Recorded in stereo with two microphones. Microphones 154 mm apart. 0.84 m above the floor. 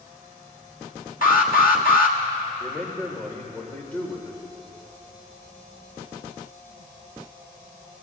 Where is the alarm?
65° left (ahead or behind), 1.4 m.